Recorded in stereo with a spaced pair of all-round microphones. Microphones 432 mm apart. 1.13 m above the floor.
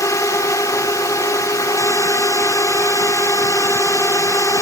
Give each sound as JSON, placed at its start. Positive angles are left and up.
{"t": 0.0, "sound": "a drone", "side_deg": 5}